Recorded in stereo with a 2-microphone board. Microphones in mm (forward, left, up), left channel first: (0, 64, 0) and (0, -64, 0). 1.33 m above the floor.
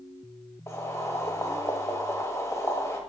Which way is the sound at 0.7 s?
20° left (ahead or behind).